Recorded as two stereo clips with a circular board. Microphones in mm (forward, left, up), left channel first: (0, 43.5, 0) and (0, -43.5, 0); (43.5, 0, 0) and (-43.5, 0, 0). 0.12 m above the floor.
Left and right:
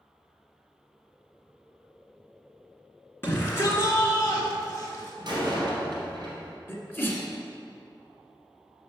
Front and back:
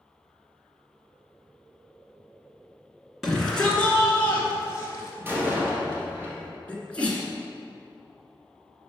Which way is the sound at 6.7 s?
60° left.